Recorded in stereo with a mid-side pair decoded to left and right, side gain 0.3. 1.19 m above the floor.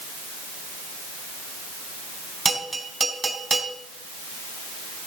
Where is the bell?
35° right, 4 m.